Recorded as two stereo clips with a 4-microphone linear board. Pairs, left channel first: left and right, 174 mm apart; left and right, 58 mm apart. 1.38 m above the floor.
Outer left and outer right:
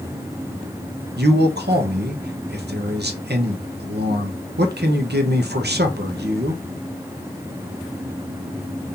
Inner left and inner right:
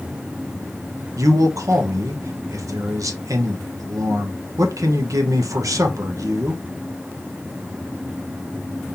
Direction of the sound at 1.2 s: 75° right (ahead or behind).